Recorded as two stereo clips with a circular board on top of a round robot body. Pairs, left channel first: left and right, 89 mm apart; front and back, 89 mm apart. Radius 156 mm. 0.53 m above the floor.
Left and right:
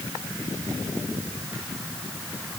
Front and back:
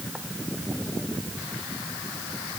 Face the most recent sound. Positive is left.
No sound to turn to.